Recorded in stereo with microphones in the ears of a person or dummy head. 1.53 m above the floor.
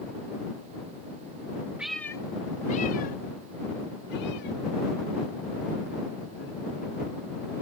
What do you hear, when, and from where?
1.8 s a cat meowing: 5° right (ahead or behind); by 6.5 s 70° left (ahead or behind)